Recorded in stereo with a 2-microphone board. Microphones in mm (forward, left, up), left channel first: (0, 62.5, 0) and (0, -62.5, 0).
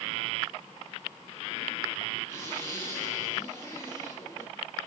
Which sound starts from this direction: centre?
A zipper, at 2.3 s.